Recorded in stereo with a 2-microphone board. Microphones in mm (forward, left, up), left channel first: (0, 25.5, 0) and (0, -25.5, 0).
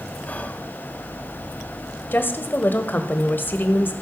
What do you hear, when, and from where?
0.3 s whispering: 30° left (ahead or behind), 1.5 m
2.1 s a woman speaking: 40° left (ahead or behind), 1.5 m